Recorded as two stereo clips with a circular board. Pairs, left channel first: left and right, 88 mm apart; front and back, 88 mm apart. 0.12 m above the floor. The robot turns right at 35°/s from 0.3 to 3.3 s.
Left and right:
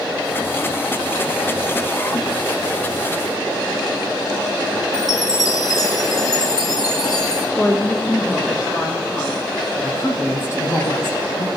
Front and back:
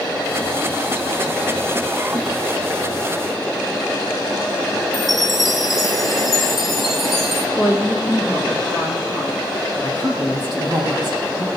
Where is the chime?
90° left, 1.8 m.